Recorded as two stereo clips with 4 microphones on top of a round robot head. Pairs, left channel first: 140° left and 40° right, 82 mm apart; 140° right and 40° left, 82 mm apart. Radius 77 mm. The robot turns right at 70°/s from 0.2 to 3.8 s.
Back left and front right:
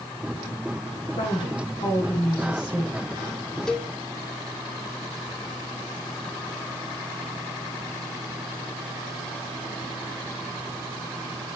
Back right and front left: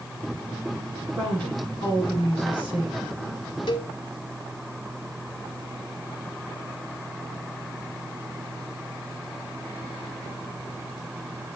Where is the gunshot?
No gunshot in this recording.